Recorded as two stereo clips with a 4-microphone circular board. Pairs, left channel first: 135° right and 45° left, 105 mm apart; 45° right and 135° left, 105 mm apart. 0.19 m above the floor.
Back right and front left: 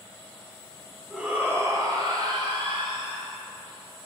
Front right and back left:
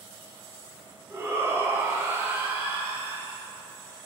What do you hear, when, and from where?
1.1 s a shout: 120° left, 1.1 m; by 3.3 s 65° left, 2.5 m